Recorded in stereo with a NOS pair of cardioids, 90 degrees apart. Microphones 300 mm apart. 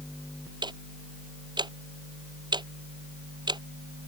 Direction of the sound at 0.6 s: 15° right.